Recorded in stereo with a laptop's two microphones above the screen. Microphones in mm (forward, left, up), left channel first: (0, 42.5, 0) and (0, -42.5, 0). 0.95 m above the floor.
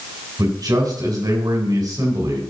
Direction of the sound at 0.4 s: 50° right (ahead or behind).